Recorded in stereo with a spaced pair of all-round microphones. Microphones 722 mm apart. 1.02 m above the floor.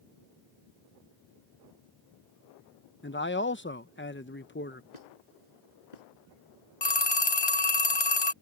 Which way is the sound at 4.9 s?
70° left (ahead or behind).